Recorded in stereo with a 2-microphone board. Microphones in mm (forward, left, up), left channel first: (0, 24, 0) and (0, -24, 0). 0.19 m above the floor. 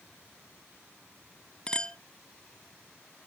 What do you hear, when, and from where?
1.7 s a clink: 20° left (ahead or behind), 0.6 m